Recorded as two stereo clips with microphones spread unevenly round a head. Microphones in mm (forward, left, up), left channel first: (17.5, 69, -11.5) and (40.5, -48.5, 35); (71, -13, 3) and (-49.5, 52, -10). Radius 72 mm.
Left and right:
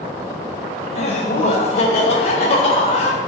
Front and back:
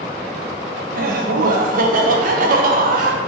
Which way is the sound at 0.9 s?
130° left.